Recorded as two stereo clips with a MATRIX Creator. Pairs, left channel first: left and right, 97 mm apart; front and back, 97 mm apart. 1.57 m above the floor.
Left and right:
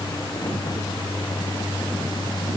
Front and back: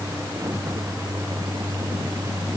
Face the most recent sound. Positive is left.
No sound to turn to.